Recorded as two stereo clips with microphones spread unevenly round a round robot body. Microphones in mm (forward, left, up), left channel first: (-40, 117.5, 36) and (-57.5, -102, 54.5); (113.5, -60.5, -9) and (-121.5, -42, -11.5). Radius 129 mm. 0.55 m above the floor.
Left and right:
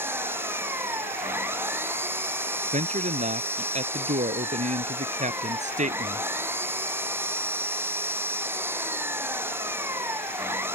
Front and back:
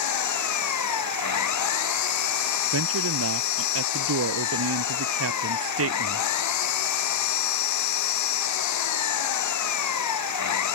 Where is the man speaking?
155° right.